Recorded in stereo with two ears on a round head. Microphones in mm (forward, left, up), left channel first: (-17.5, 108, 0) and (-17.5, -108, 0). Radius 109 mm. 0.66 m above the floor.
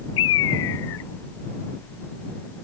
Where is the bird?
55° left (ahead or behind).